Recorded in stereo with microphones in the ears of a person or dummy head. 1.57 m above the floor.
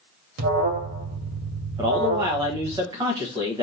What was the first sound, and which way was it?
An alarm, 65° right (ahead or behind).